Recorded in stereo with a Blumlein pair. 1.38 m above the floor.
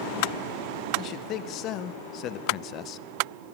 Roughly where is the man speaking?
Ahead left.